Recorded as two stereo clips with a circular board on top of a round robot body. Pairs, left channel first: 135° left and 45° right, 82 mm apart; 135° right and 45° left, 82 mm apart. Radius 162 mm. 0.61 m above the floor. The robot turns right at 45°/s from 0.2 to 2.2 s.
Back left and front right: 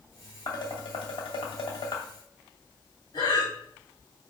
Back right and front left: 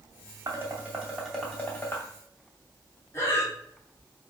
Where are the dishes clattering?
100° left, 2.5 m; by 2.1 s 170° left, 2.5 m.